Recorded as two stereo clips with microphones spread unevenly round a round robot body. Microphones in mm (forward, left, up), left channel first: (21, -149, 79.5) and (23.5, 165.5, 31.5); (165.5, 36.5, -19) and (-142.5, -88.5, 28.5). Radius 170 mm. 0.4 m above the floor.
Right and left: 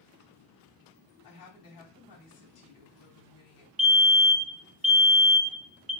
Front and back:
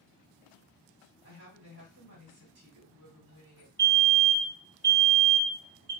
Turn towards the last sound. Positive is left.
turn(degrees=90)